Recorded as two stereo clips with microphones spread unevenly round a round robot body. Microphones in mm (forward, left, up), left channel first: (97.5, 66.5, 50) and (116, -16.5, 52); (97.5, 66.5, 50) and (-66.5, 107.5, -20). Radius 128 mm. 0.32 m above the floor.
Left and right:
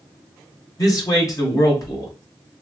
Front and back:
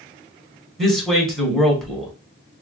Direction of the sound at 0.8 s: 100° left.